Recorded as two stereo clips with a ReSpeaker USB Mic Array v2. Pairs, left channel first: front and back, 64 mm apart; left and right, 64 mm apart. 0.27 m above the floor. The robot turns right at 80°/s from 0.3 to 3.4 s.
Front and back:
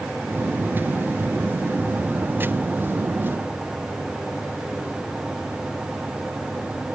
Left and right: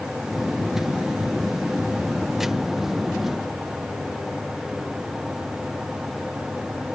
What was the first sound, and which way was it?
Only background noise.